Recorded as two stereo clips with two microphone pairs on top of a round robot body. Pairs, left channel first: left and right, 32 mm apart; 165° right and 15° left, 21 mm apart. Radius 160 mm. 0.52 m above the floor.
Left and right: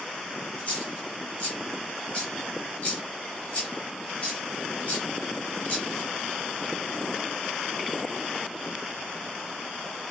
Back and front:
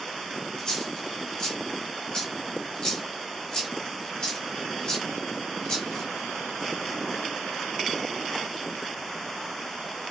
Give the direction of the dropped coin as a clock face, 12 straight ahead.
7 o'clock.